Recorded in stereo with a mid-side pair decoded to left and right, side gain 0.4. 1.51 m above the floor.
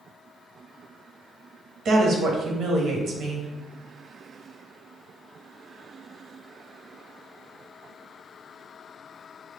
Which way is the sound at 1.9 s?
70° right.